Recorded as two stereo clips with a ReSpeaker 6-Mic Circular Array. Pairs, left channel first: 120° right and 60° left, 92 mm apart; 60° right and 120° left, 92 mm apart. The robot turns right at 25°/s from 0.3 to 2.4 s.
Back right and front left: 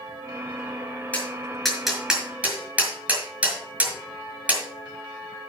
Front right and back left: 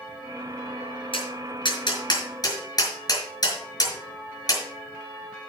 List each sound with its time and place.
1.1 s tapping: 45° right, 5.5 m; by 4.6 s 15° right, 5.5 m